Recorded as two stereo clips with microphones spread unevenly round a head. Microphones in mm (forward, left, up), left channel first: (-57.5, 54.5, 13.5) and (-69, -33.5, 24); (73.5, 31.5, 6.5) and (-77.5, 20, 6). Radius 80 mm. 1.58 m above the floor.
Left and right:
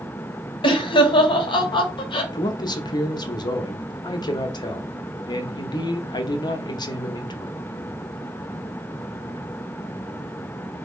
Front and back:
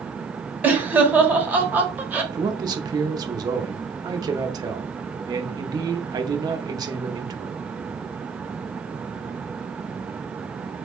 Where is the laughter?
105° left, 1.0 m.